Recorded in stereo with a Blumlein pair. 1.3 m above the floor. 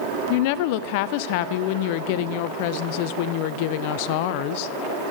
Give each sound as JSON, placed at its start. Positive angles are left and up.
{"t": 0.3, "sound": "a woman speaking", "azimuth_deg": 45, "distance_m": 0.6}